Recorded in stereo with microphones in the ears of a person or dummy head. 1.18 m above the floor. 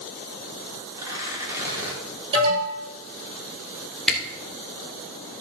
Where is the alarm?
35° right (ahead or behind), 6 m.